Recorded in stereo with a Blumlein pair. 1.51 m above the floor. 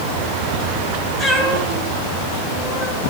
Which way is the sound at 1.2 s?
15° left.